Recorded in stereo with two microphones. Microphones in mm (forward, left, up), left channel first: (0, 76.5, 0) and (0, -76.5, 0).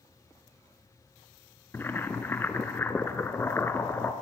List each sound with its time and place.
1.7 s boiling: 15° left (ahead or behind), 1.0 m